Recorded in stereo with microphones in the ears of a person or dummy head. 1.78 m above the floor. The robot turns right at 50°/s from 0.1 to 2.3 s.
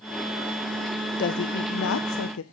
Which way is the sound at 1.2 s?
50° left.